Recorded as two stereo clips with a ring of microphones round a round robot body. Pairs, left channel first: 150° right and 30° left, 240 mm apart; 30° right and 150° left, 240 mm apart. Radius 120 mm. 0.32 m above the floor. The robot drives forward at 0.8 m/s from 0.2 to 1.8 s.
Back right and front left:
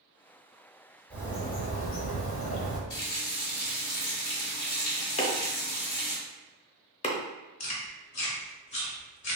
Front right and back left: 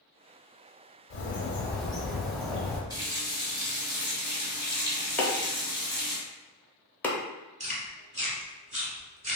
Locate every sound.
1.1 s a bird: 65° right, 0.7 m; by 2.8 s 120° right, 0.7 m
2.9 s a running tap: 140° right, 1.1 m
5.2 s chopping: 110° right, 0.6 m
7.6 s chewing: 150° right, 1.0 m